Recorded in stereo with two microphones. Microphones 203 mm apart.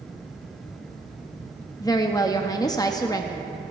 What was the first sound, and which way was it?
A woman speaking, 20° left (ahead or behind).